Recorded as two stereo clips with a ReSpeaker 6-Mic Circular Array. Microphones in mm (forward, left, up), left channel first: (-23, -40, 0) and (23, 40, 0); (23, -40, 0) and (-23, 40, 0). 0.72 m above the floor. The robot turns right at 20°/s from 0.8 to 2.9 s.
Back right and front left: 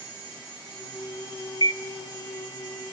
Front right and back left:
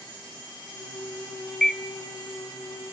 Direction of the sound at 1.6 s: 145° right.